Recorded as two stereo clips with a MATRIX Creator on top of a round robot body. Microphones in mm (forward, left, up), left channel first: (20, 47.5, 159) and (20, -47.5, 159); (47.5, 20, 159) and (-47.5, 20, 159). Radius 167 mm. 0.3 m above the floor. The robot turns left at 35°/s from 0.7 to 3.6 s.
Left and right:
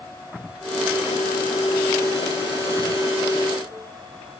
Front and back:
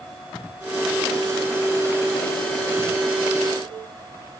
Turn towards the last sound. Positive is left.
No sound to turn to.